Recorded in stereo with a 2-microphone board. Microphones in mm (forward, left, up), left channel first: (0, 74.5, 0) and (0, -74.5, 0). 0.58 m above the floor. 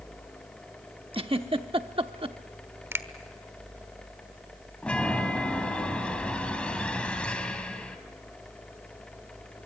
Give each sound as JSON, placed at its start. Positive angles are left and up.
{"t": 1.1, "sound": "a giggle", "side_deg": -40, "distance_m": 0.8}
{"t": 2.9, "sound": "a finger snap", "side_deg": -15, "distance_m": 1.1}
{"t": 4.8, "sound": "a chime", "side_deg": 10, "distance_m": 2.0}